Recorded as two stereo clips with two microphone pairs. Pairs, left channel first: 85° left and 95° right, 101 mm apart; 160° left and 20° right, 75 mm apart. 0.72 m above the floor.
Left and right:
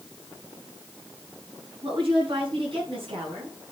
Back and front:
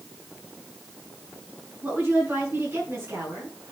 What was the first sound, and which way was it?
A woman speaking, 75° right.